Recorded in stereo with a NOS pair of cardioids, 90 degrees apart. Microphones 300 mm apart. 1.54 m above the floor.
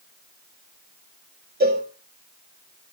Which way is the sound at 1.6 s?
30° right.